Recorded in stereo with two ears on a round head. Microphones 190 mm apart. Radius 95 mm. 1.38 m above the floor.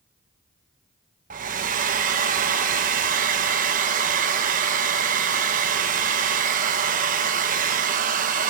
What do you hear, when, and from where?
1.3 s a hair dryer: 40° right (ahead or behind), 1.1 m